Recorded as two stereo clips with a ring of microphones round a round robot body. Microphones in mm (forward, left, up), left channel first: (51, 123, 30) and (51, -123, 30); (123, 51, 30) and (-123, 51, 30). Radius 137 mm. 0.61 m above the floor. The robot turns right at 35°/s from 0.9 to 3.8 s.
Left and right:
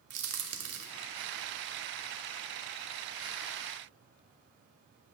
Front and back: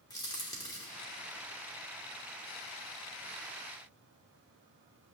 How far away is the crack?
About 1.1 m.